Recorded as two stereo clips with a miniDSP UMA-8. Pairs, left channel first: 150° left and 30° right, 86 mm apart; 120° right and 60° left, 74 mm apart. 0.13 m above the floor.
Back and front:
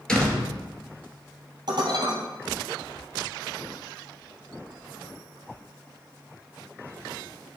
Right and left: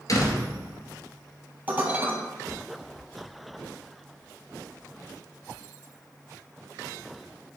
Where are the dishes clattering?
Straight ahead, 2 m.